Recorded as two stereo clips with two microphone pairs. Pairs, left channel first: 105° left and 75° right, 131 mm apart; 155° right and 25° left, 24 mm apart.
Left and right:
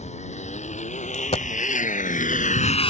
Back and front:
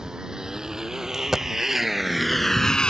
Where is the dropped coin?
90° left.